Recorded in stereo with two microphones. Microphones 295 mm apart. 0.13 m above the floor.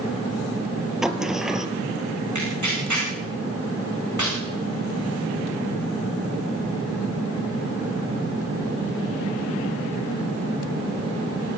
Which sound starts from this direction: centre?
A sliding door, at 1.0 s.